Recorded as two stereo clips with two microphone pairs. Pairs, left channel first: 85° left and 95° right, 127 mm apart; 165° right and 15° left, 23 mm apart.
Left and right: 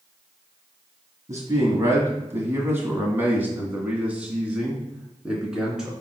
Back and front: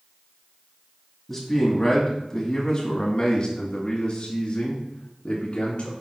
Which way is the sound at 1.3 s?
95° right.